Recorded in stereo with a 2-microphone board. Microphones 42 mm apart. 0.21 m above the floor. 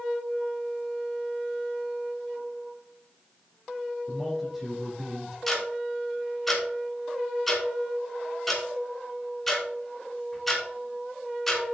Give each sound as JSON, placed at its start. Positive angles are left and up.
{"t": 4.1, "sound": "a man speaking", "side_deg": -5, "distance_m": 4.5}
{"t": 5.5, "sound": "ticking", "side_deg": 5, "distance_m": 3.0}